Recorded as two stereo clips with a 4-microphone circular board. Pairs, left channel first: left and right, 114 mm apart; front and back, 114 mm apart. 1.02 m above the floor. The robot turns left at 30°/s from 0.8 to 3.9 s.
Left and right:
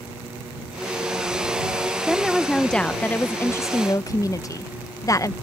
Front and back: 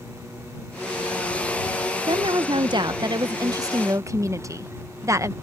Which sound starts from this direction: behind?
A woman speaking, at 2.1 s.